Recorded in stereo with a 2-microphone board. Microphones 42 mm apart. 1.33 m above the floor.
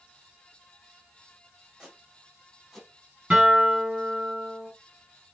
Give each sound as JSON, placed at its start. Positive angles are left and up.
{"t": 1.8, "sound": "footsteps", "side_deg": -15, "distance_m": 4.5}
{"t": 3.3, "sound": "a guitar", "side_deg": -30, "distance_m": 5.5}